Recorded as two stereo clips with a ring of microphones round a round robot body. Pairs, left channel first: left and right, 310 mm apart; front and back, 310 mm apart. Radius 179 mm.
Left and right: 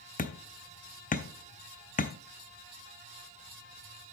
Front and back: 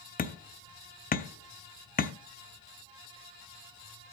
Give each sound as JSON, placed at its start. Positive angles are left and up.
{"t": 0.2, "sound": "hammering", "azimuth_deg": 45, "distance_m": 1.1}